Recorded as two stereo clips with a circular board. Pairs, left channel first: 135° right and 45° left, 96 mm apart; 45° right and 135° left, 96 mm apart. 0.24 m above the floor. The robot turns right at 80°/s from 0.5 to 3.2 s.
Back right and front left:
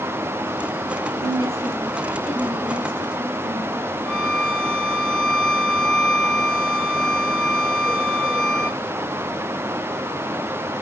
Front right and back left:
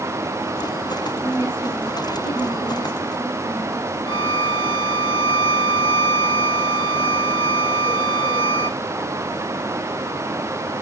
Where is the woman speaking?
110° right, 4.5 m; by 3.9 s 50° left, 4.5 m.